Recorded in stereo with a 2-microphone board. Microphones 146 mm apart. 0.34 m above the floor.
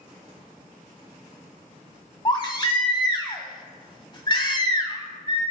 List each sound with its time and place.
2.2 s a baby crying: 30° left (ahead or behind), 1.0 m